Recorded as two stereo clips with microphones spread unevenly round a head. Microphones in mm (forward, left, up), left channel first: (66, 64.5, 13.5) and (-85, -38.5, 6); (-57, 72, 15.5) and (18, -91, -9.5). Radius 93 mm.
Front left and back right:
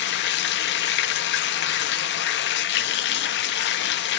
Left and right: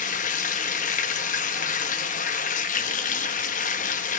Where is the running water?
60° left, 1.8 m.